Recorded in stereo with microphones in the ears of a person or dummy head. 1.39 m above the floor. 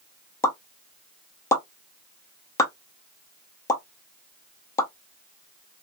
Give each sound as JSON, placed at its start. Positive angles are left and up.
{"t": 0.4, "sound": "a pop", "side_deg": 15, "distance_m": 0.5}